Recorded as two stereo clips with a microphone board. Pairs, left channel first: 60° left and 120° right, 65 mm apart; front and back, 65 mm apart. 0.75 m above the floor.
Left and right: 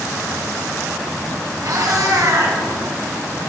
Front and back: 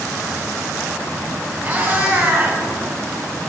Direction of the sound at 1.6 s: 115° right.